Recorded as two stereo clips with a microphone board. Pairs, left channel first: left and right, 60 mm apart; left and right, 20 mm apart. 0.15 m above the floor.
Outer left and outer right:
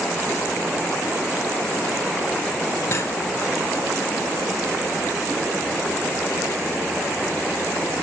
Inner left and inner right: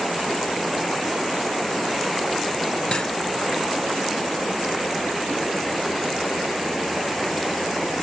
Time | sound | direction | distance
2.9 | cutlery clinking | 45° left (ahead or behind) | 1.8 m